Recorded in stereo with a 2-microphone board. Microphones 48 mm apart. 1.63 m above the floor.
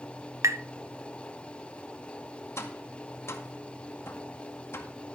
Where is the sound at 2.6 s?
65° left (ahead or behind), 1.9 m.